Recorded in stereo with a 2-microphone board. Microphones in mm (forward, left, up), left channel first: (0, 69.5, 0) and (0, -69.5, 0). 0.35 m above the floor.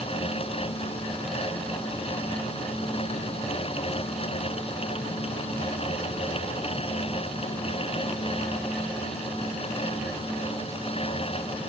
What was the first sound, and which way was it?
Only background noise.